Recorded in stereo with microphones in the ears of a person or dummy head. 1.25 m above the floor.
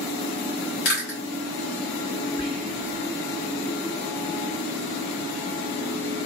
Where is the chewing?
55° left (ahead or behind), 1.6 m.